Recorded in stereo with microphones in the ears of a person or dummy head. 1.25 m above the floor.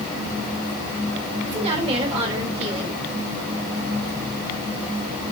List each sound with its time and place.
1.4 s a woman speaking: 30° right (ahead or behind), 4 m